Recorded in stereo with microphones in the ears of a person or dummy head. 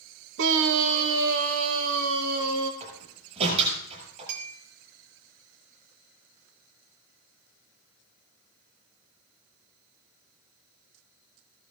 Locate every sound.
0.4 s a scream: 60° right (ahead or behind), 0.9 m; by 2.7 s 70° right (ahead or behind), 3 m
2.8 s a door slam: 35° right (ahead or behind), 7.5 m
4.3 s a clink: 65° right (ahead or behind), 2 m